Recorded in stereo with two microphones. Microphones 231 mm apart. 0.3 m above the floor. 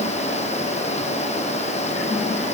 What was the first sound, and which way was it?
Only background noise.